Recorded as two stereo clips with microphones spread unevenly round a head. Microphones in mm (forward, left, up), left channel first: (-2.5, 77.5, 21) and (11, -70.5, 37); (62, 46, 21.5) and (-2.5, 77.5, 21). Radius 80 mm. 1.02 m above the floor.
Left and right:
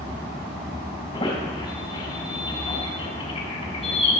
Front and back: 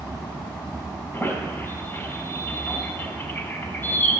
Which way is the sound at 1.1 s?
35° left.